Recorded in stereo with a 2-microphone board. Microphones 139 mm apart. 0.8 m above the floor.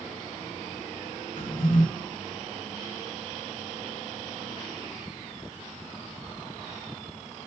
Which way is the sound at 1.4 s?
70° left (ahead or behind).